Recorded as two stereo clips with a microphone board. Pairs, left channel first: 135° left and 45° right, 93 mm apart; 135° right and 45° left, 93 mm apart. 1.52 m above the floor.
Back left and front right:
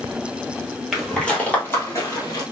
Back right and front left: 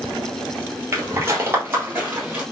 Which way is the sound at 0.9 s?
45° left.